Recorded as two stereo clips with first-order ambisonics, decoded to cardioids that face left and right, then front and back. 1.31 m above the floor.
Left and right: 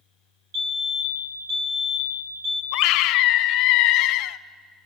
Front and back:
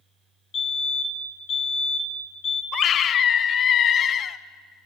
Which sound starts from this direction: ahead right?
A fire alarm, at 0.5 s.